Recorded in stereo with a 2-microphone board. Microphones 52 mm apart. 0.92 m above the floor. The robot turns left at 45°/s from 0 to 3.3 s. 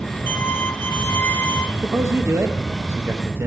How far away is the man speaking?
About 0.7 m.